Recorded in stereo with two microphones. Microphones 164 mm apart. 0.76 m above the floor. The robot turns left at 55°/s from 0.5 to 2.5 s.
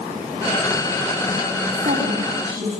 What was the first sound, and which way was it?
A woman speaking, 100° right.